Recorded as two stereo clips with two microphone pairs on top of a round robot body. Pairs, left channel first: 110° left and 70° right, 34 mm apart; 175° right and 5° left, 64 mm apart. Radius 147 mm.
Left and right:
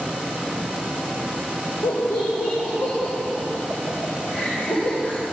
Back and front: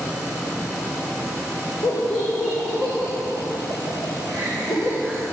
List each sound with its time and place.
1.8 s laughter: 110° left, 4.5 m